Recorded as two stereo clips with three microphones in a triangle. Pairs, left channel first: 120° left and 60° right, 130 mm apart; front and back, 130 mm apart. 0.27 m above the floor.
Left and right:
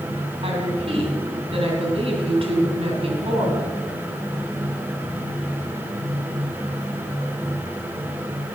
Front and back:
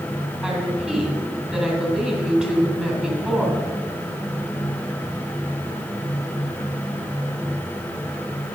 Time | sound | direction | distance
0.4 | a woman speaking | 100° right | 3 m